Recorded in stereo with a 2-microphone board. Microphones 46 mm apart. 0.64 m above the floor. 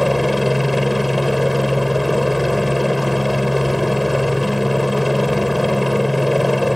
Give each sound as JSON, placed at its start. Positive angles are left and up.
{"t": 0.0, "sound": "a helicopter", "side_deg": 0}